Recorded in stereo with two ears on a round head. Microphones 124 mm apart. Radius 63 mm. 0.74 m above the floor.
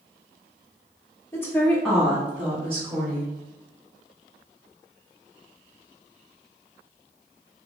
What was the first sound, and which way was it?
A woman speaking, 20° left (ahead or behind).